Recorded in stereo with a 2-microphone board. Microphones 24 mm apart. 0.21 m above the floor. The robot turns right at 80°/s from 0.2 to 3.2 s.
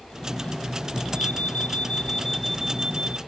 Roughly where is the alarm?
Left.